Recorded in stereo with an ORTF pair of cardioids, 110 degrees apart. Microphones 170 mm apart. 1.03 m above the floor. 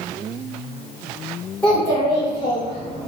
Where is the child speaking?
10° left, 1.9 m; by 3.1 s 40° left, 2.5 m.